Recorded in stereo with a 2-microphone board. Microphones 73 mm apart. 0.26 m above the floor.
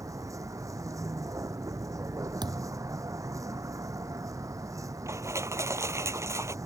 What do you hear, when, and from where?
0.0 s a vehicle: 45° right (ahead or behind)
2.4 s a thud: 75° right (ahead or behind)
5.1 s crushing: 40° right (ahead or behind)